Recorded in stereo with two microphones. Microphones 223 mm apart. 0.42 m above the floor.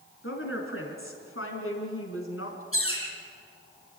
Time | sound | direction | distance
0.2 | a woman speaking | 70° left (ahead or behind) | 5 m
2.7 | a bird | 70° left (ahead or behind) | 7 m